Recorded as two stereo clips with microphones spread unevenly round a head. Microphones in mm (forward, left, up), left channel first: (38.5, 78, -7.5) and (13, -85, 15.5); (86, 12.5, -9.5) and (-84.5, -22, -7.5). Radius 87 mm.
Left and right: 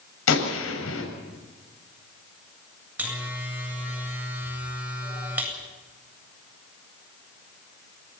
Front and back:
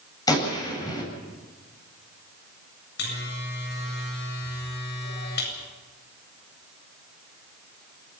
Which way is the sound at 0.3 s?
85° left.